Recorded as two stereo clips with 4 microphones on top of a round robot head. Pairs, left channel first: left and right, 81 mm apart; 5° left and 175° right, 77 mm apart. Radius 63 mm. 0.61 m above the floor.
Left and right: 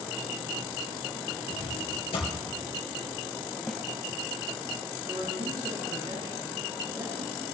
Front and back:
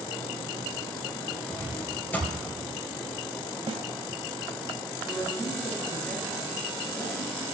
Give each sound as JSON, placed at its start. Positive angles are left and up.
{"t": 1.5, "sound": "a drawer", "azimuth_deg": 75, "distance_m": 4.0}
{"t": 3.7, "sound": "a snare drum", "azimuth_deg": 180, "distance_m": 1.2}
{"t": 5.1, "sound": "a woman speaking", "azimuth_deg": -60, "distance_m": 5.5}